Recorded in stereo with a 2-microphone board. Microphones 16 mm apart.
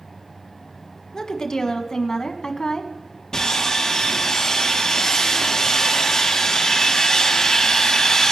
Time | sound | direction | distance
1.1 | a woman speaking | 40° left (ahead or behind) | 1.8 m
3.3 | sawing | 45° left (ahead or behind) | 4.5 m